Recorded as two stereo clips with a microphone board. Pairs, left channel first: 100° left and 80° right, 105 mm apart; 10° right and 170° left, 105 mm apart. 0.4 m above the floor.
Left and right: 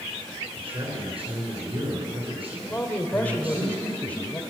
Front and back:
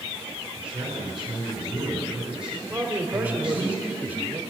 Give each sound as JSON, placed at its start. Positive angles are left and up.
{"t": 0.6, "sound": "a man speaking", "azimuth_deg": -110, "distance_m": 5.0}
{"t": 2.7, "sound": "a man speaking", "azimuth_deg": 135, "distance_m": 1.4}